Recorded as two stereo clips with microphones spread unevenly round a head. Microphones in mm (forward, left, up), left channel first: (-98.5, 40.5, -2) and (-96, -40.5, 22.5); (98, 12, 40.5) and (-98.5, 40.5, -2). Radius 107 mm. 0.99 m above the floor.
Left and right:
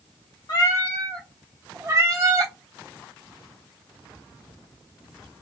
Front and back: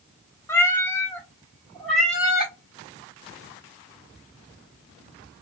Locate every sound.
0.5 s a cat meowing: 45° left, 0.6 m; by 2.5 s 95° right, 0.9 m